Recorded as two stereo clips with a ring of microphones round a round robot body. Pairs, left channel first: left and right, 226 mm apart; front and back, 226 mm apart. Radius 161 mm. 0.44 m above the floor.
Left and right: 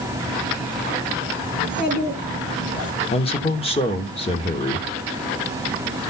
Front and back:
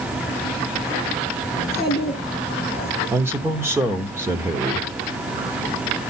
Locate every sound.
1.6 s a child speaking: 110° left, 4 m
3.1 s a man speaking: 110° left, 1.1 m